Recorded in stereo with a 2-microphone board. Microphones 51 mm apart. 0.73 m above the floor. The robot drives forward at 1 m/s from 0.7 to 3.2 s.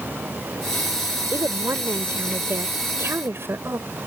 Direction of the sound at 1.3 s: 75° right (ahead or behind).